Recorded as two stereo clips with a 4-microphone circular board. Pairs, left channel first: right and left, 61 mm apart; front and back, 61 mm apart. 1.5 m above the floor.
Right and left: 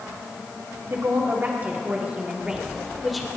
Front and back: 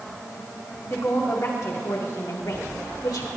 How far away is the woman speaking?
About 2.5 m.